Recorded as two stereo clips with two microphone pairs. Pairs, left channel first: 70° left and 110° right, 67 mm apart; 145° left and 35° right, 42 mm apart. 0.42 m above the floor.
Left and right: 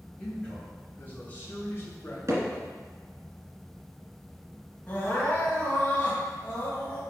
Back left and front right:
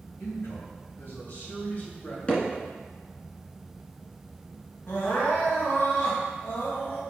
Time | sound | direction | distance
0.2 | a man speaking | 140° left | 2.5 m
2.3 | hammering | 155° right | 1.8 m
4.9 | crying | 130° left | 2.5 m